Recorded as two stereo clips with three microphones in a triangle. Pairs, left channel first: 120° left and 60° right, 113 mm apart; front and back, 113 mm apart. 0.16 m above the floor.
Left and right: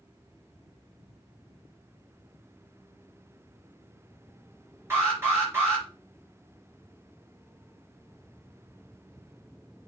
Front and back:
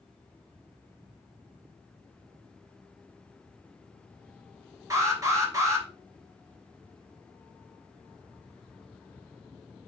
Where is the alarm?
125° right, 3 m.